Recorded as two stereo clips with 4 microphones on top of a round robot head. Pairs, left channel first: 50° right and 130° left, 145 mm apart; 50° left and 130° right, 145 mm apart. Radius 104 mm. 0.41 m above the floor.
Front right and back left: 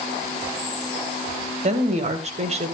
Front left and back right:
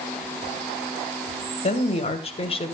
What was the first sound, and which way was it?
A woman speaking, 90° left.